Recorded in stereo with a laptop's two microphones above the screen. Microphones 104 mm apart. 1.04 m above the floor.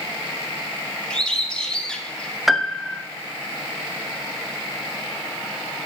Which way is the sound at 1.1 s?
10° left (ahead or behind).